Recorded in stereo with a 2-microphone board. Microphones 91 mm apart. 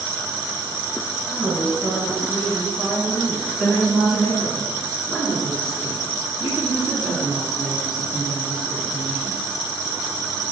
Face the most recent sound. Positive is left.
turn(degrees=0)  # may be behind; listen again after turning